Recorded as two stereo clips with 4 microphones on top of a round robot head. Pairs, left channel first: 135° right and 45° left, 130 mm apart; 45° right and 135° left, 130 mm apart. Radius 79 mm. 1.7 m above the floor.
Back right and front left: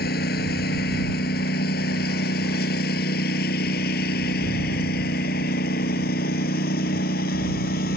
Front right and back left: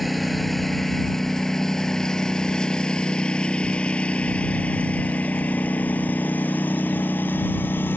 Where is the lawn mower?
140° right; by 8.0 s 125° right.